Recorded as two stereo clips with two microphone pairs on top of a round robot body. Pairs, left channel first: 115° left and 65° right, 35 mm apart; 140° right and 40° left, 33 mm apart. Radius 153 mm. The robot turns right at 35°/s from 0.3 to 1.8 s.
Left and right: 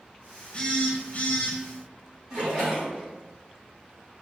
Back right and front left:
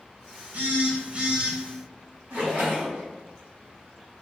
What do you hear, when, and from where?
0.5 s a phone buzzing: 80° left, 1.0 m; by 1.6 s 115° left, 1.0 m
2.3 s a splash: straight ahead, 1.6 m